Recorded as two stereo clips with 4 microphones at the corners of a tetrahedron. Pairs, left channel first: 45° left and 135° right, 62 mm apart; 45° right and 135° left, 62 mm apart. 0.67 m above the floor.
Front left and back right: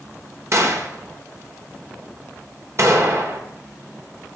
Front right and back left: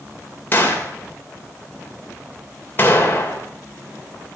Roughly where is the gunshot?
Right.